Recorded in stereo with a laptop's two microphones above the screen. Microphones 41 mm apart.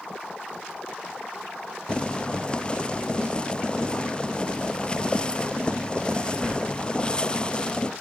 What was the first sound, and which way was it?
Boiling, 20° left (ahead or behind).